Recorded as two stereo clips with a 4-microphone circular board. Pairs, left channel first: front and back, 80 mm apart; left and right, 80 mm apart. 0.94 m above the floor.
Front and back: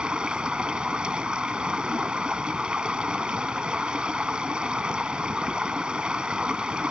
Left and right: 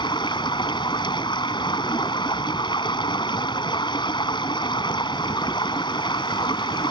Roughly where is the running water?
Left.